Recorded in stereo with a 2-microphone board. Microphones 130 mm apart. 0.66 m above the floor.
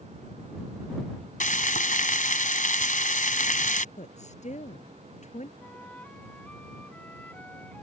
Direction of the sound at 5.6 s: 10° left (ahead or behind).